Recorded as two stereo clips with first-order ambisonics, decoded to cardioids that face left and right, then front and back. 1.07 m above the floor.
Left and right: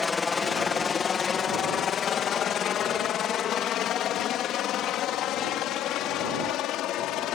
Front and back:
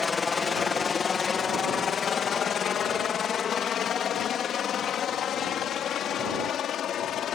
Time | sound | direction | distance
0.0 | a helicopter | 50° left | ?